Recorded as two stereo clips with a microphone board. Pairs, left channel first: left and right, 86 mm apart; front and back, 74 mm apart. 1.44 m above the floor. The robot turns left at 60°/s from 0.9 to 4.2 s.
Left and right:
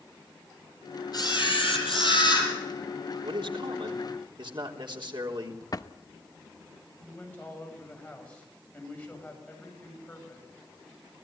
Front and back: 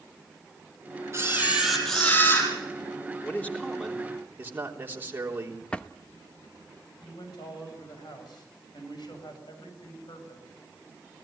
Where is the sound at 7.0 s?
15° left, 8.5 m.